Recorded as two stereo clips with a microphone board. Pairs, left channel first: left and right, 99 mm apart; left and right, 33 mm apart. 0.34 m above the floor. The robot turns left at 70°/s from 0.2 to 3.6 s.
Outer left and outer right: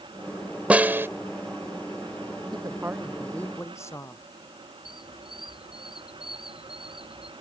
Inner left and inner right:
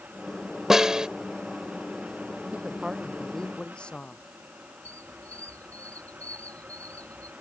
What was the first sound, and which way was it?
A snare drum, 15° right (ahead or behind).